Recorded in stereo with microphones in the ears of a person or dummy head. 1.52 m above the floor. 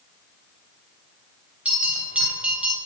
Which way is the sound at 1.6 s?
5° right (ahead or behind).